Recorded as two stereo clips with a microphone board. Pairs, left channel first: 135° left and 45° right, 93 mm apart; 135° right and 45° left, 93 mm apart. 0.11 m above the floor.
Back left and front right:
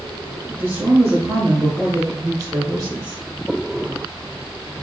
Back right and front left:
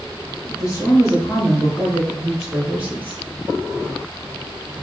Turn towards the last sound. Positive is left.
turn(degrees=-10)